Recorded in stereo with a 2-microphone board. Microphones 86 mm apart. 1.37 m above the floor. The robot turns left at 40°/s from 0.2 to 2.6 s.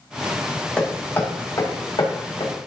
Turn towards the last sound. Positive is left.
turn(degrees=85)